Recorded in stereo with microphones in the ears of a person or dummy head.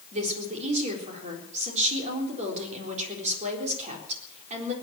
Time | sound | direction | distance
0.1 | a woman speaking | 35° right (ahead or behind) | 4 m